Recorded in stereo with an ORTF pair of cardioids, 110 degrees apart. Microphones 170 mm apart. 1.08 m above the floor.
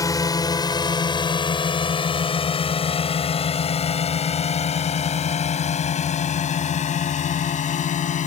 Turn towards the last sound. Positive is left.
turn(degrees=50)